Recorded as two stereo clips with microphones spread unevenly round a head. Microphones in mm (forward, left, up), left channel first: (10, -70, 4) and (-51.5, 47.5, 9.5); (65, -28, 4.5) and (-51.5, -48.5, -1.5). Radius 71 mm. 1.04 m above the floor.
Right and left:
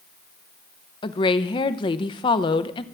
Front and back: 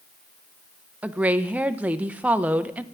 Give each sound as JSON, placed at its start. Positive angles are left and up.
{"t": 1.0, "sound": "a woman speaking", "azimuth_deg": -100, "distance_m": 0.7}